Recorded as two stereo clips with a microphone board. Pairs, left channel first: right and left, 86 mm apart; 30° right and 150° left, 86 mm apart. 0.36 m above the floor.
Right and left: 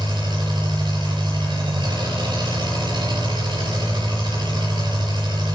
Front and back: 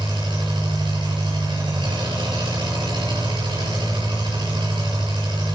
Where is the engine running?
120° left, 6 m.